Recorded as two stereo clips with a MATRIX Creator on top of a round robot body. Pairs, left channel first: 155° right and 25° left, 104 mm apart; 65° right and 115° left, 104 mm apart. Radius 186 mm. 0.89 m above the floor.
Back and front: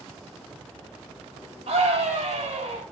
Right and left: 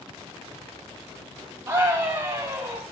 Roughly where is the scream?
Ahead left.